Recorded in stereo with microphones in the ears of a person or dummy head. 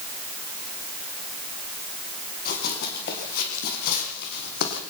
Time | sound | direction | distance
2.5 | running footsteps | 55° left (ahead or behind) | 6 m